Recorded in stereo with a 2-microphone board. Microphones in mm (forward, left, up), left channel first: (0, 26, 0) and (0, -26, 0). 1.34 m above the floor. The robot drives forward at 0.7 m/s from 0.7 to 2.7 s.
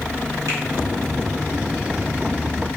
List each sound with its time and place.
0.5 s a finger snap: 80° right, 1.7 m